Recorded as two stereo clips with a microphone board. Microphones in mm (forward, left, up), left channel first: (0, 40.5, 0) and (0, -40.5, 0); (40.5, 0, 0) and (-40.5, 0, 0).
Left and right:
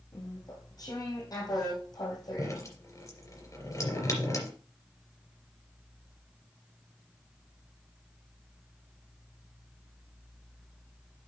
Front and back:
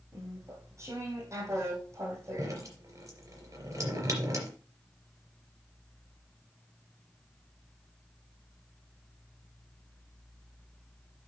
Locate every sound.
0.1 s chewing: 130° left, 3 m
2.4 s dripping: 135° left, 3 m